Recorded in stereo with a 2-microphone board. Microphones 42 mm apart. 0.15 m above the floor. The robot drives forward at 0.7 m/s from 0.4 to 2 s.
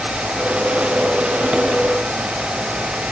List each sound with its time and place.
Only background noise.